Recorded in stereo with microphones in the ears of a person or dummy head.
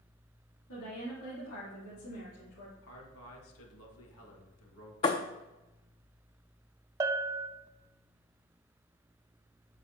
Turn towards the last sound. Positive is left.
turn(degrees=-20)  # may be behind; listen again after turning